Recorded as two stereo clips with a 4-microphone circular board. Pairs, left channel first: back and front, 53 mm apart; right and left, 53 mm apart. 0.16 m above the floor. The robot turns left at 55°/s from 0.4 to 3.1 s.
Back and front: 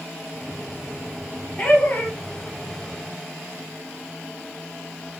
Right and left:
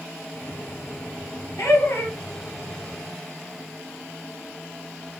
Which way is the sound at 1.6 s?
110° right.